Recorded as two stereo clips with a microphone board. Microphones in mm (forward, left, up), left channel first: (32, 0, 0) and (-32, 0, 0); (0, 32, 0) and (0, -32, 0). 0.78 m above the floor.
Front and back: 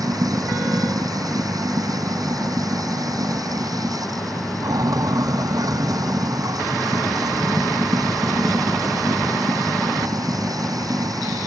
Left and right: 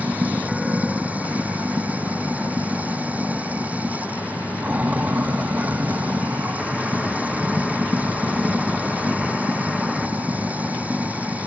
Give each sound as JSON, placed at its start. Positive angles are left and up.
{"t": 0.0, "sound": "running water", "azimuth_deg": -160}